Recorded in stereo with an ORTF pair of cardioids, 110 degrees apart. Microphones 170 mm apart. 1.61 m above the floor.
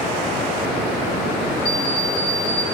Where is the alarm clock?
70° left, 3.5 m.